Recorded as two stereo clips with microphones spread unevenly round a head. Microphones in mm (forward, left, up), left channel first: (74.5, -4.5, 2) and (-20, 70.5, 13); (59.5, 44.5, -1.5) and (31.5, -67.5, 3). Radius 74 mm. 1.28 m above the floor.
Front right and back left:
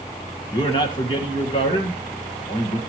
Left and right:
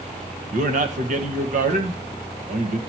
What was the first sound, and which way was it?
A man speaking, 95° right.